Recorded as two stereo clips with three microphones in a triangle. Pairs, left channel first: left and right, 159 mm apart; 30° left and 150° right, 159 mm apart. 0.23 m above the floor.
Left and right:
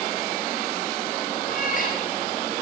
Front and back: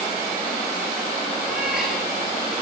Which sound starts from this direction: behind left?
A cat meowing, at 1.5 s.